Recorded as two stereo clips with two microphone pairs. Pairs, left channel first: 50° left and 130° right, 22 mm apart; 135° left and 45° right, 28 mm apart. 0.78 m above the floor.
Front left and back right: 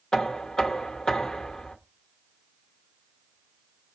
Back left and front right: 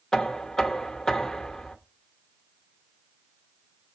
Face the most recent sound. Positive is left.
turn(degrees=80)